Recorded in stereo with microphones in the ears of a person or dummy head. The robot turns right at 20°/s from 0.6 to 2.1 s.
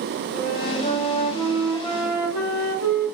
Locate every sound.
0.3 s a flute: 125° left, 1.4 m; by 3.0 s 155° left, 1.4 m